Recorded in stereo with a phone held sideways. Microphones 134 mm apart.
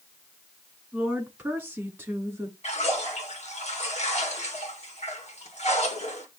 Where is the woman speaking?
10° right (ahead or behind), 3.5 m; by 2.5 s 20° right (ahead or behind), 2.5 m.